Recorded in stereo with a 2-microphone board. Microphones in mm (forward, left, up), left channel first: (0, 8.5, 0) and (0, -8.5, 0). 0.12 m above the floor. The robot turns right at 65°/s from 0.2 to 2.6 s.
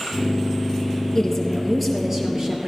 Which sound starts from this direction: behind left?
A woman speaking, at 1.1 s.